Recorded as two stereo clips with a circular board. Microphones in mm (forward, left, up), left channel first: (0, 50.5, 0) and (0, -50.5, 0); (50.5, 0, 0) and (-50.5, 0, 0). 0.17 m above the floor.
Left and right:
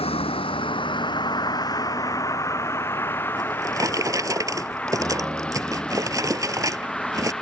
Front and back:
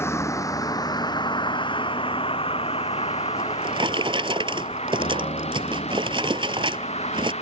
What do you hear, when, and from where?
0.0 s a vehicle: 65° left; by 7.4 s 5° left
3.4 s a drawer: 145° right